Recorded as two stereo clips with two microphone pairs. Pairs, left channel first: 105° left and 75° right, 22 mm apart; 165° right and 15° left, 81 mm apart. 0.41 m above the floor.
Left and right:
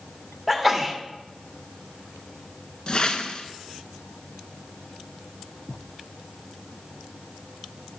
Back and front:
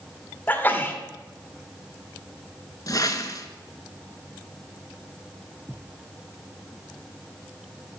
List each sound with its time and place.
0.5 s a sneeze: 155° right, 1.1 m
2.9 s a whoosh: 155° left, 0.7 m